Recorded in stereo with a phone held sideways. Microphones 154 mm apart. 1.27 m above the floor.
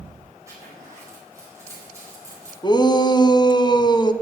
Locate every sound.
0.5 s a zipper: 20° right (ahead or behind), 5 m
2.6 s a shout: 30° left (ahead or behind), 0.7 m